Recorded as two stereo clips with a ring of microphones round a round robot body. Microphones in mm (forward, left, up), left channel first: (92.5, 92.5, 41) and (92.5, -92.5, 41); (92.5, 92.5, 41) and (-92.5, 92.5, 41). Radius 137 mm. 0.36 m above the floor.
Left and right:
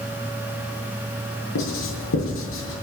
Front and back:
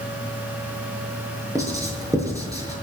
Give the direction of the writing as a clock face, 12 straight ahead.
8 o'clock.